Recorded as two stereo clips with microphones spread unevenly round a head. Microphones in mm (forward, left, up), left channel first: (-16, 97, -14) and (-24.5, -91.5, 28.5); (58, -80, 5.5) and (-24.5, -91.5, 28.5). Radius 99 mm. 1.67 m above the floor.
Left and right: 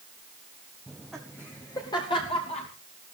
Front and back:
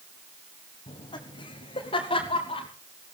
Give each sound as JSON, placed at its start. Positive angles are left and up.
{"t": 0.9, "sound": "laughter", "azimuth_deg": -10, "distance_m": 1.7}